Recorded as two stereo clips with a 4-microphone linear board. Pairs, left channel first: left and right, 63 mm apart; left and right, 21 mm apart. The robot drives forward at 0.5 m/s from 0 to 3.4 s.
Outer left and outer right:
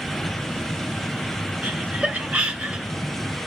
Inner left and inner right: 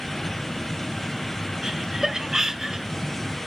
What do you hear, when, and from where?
1.6 s laughter: 20° right (ahead or behind), 2 m; by 2.9 s 15° right (ahead or behind), 2.5 m